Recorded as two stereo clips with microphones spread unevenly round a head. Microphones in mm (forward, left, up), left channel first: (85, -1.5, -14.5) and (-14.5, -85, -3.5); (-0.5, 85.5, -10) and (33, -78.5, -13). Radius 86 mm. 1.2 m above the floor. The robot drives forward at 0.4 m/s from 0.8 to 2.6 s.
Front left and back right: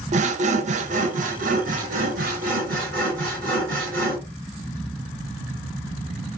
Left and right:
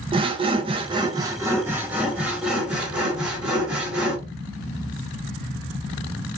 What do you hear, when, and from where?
0.1 s sawing: 135° right, 0.5 m; by 4.2 s 165° right, 1.1 m